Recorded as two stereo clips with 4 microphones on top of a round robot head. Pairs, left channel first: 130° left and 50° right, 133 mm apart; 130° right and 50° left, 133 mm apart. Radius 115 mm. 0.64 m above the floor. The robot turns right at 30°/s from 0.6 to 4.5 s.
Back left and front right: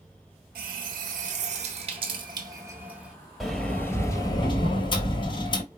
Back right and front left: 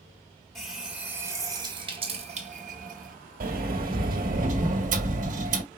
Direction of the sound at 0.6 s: 40° right.